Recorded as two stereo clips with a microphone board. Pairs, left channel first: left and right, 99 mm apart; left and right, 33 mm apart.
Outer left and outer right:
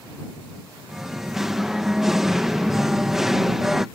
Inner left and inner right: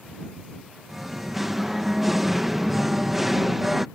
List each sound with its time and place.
0.9 s singing: 5° right (ahead or behind)